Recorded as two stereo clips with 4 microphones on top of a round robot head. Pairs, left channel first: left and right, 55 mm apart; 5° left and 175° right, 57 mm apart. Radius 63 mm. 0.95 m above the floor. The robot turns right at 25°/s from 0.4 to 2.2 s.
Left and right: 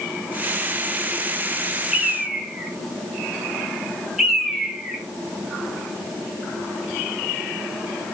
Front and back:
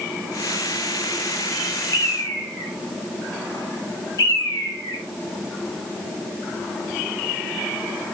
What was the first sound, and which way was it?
A bird, 15° right.